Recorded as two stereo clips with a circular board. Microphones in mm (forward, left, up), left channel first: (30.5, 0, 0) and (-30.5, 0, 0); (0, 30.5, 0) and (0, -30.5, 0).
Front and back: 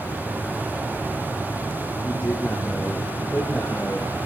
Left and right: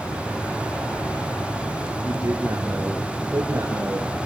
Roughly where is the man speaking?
Ahead right.